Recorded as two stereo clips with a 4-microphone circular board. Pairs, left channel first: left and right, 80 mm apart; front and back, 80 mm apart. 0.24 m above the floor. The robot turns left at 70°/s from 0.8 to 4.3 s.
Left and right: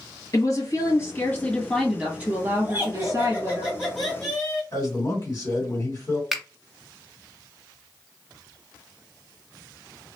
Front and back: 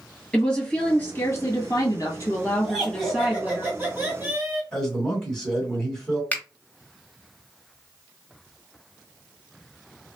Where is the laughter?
85° right, 1.6 m; by 4.6 s 160° left, 1.6 m.